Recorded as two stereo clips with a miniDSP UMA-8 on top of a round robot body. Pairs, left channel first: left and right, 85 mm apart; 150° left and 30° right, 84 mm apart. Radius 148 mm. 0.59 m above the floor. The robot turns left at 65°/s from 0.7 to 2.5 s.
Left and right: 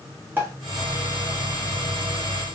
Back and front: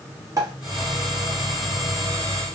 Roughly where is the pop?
Ahead right.